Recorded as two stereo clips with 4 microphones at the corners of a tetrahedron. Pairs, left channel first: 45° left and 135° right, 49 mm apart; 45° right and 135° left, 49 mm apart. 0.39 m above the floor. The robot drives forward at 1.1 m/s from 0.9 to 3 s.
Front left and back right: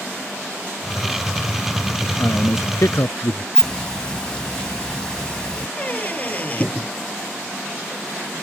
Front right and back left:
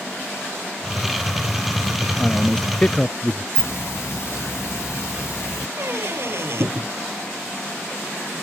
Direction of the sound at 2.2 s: 25° left.